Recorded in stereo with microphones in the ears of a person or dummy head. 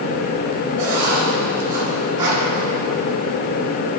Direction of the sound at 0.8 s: 15° right (ahead or behind).